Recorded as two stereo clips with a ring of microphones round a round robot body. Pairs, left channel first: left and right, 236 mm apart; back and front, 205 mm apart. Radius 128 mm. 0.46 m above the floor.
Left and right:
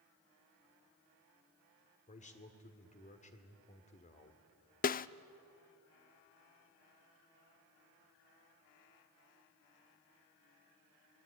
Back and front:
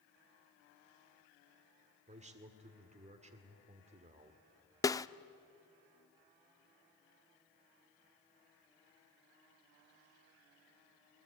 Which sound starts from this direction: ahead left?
A man speaking, at 2.1 s.